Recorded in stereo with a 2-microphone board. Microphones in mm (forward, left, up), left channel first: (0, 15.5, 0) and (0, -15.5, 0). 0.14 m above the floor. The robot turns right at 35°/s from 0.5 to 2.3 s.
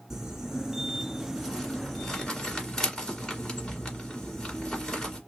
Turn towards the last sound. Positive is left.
turn(degrees=20)  # may be behind; listen again after turning